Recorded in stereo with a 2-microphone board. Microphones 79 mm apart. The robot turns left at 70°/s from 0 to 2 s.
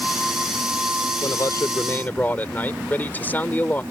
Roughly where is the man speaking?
Left.